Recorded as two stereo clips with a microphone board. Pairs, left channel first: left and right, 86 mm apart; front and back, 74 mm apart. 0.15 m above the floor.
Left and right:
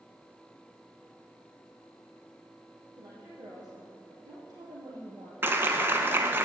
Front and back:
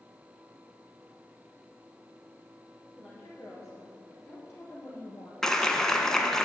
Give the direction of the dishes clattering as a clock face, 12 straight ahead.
No dishes clattering in this recording.